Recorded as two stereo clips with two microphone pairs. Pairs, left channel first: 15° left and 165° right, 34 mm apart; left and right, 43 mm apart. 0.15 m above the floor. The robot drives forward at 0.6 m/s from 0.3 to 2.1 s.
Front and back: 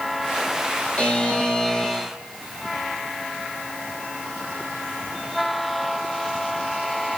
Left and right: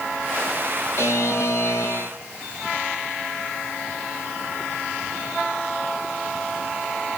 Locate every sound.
1.0 s a buzzer: 70° left, 2 m; by 2.1 s 90° left, 2 m